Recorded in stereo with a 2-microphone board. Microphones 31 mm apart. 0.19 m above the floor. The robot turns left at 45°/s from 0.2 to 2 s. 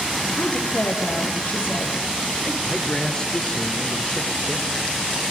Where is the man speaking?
25° left (ahead or behind), 3 m.